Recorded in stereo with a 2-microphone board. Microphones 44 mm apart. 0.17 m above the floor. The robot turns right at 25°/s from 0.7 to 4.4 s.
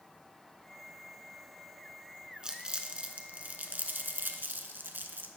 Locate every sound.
2.4 s crumpling: 20° right (ahead or behind), 0.6 m; by 5.3 s 55° right (ahead or behind), 0.6 m